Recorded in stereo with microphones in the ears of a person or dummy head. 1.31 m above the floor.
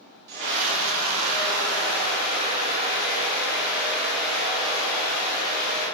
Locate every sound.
0.3 s a scream: 60° right (ahead or behind), 2.5 m; by 5.9 s 10° left (ahead or behind), 5 m